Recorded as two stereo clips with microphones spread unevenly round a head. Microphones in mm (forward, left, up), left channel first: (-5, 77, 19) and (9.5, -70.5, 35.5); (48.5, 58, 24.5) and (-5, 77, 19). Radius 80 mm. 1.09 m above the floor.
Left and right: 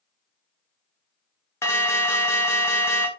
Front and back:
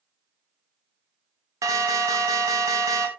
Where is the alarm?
165° left, 1.4 m.